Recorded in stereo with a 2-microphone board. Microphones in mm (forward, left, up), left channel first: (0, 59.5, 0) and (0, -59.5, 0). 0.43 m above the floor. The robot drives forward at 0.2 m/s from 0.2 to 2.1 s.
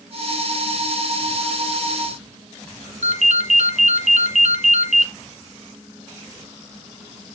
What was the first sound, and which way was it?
A ringtone, 80° right.